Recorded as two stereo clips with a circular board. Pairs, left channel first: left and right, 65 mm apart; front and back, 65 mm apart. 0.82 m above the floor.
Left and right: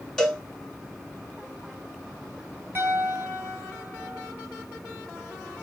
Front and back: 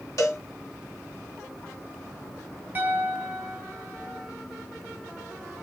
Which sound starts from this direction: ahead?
A cowbell, at 0.2 s.